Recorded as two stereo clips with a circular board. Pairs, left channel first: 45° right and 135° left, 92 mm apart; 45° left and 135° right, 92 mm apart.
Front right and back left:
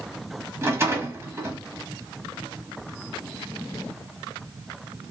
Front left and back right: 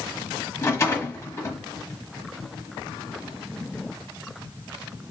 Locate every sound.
0.6 s a rattle: 90° left, 1.1 m